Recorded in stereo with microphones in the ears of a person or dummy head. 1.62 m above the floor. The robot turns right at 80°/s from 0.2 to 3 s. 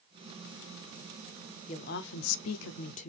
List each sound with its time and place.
1.7 s a woman speaking: 35° left, 0.7 m; by 3.1 s 140° left, 0.7 m